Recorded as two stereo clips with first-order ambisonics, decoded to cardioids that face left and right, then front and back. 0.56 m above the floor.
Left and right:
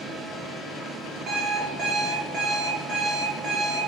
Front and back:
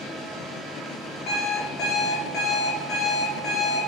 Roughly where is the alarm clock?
Ahead right.